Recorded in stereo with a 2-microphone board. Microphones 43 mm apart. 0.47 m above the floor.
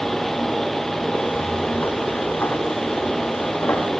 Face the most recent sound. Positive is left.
turn(degrees=75)  # may be behind; listen again after turning